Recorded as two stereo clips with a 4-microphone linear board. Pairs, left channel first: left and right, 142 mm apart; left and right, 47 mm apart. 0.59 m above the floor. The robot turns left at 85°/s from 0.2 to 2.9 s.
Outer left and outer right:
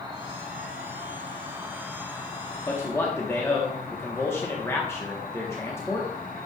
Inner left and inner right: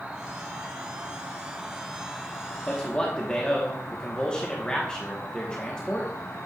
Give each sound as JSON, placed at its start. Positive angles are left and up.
{"t": 0.0, "sound": "an insect", "azimuth_deg": -35, "distance_m": 1.3}
{"t": 2.7, "sound": "a man speaking", "side_deg": 20, "distance_m": 1.0}